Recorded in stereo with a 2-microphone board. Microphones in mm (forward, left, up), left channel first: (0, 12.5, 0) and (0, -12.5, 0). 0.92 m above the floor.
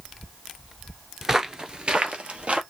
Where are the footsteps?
10° right (ahead or behind), 0.9 m; by 2.6 s 50° right (ahead or behind), 1.5 m.